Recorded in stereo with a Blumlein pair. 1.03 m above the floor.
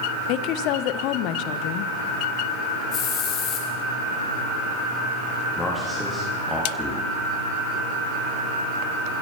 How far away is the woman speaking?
About 0.5 m.